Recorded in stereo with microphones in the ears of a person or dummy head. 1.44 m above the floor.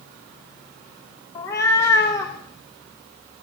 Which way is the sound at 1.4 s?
20° left (ahead or behind).